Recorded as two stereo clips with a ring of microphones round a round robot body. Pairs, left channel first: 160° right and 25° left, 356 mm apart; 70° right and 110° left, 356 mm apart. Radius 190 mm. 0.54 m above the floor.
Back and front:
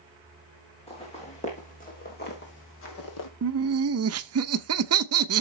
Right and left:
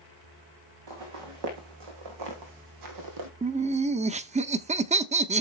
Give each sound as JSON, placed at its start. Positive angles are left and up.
{"t": 0.9, "sound": "footsteps", "azimuth_deg": 130, "distance_m": 4.0}
{"t": 3.4, "sound": "laughter", "azimuth_deg": 50, "distance_m": 0.8}